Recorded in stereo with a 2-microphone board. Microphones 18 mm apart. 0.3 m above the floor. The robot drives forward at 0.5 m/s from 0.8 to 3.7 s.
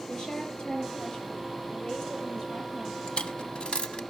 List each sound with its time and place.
0.1 s a woman speaking: 45° left (ahead or behind), 5.5 m; by 3.0 s 40° left (ahead or behind), 6.5 m
3.1 s a dropped coin: 55° left (ahead or behind), 0.8 m; by 4.0 s 70° left (ahead or behind), 0.7 m